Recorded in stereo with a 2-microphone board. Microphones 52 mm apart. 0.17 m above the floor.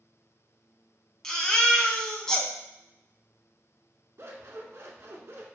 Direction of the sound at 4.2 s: 55° right (ahead or behind).